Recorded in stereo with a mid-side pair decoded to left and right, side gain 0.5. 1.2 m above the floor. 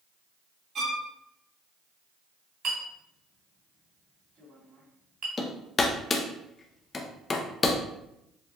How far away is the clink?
About 2.5 m.